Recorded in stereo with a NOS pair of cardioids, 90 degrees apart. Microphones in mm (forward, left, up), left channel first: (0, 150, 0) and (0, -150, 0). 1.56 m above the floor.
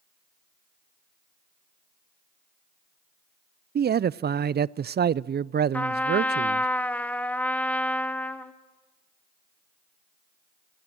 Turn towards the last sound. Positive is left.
turn(degrees=5)